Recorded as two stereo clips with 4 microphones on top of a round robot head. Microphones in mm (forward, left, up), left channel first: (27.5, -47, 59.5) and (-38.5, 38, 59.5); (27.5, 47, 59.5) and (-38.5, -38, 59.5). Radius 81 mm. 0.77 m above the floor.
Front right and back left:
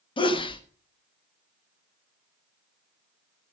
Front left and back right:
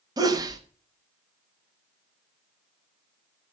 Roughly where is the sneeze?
Right.